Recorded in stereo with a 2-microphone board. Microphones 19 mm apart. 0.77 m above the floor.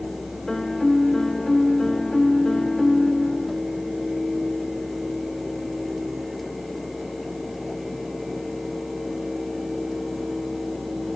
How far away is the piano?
About 0.6 m.